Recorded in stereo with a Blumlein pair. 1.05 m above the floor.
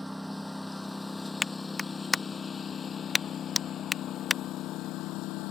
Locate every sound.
0.0 s a lawn mower: straight ahead; by 5.5 s 40° left
1.4 s a clap: 10° left